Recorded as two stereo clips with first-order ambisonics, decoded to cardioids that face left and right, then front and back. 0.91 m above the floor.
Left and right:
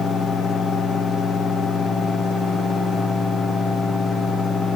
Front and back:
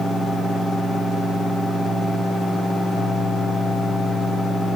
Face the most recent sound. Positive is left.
No sound to turn to.